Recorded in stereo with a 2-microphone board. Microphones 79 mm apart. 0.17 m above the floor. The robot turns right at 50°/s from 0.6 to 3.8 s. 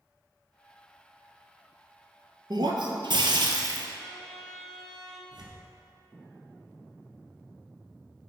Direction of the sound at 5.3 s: 65° right (ahead or behind).